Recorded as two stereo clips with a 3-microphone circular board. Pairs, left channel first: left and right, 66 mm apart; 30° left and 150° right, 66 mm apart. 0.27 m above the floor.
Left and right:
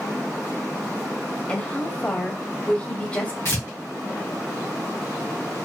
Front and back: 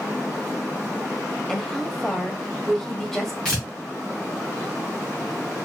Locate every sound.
1.5 s a woman speaking: 105° left, 0.9 m
3.5 s tearing paper: 105° left, 2.0 m